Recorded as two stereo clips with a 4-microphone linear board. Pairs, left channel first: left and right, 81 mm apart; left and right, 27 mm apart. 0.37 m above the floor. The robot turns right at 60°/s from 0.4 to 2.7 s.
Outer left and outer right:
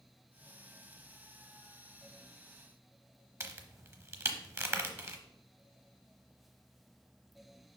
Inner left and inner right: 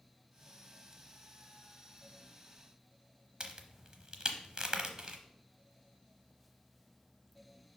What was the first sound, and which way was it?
A crack, 35° right (ahead or behind).